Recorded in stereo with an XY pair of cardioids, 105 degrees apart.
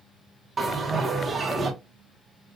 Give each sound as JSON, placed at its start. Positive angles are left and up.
{"t": 0.6, "sound": "a bell", "azimuth_deg": -25, "distance_m": 1.0}